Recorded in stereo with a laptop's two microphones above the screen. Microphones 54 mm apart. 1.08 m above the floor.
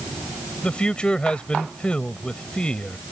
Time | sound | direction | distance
0.6 | a man speaking | 20° left (ahead or behind) | ?